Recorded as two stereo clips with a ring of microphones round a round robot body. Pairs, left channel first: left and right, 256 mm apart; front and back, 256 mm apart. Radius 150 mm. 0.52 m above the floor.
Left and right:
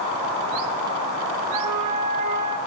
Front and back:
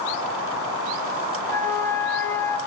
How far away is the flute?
About 4 m.